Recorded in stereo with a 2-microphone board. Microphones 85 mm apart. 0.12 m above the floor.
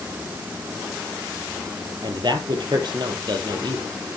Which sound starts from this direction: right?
A man speaking, at 2.0 s.